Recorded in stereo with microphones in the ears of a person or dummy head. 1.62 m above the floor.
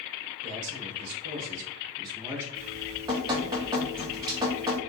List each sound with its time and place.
0.4 s a man speaking: 75° right (ahead or behind), 1.1 m; by 2.5 s 15° right (ahead or behind), 1.1 m
2.5 s dripping: 20° right (ahead or behind), 0.6 m